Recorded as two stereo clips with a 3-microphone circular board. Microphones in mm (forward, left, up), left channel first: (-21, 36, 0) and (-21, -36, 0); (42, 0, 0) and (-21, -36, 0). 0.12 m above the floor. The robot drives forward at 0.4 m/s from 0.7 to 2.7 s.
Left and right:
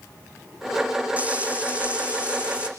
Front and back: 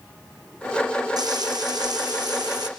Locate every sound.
1.2 s frying: 160° right, 3 m; by 2.7 s 165° right, 3.5 m